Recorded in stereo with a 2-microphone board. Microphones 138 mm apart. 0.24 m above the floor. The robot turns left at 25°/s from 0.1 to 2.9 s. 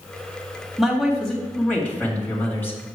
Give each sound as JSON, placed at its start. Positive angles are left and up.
{"t": 0.8, "sound": "a man speaking", "side_deg": 0, "distance_m": 1.7}